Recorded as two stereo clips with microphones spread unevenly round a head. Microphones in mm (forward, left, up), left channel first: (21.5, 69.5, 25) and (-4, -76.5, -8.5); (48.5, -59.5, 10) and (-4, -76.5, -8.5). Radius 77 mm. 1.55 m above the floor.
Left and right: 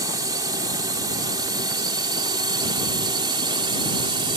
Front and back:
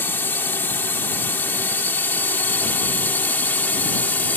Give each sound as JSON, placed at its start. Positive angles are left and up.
{"t": 0.0, "sound": "a drone", "azimuth_deg": -35}